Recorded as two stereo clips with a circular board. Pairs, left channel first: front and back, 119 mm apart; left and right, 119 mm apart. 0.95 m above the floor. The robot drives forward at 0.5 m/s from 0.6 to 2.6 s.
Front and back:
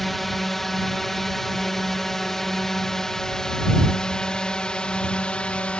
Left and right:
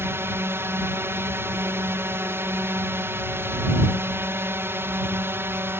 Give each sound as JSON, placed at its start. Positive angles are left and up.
{"t": 0.0, "sound": "a drone", "azimuth_deg": -85}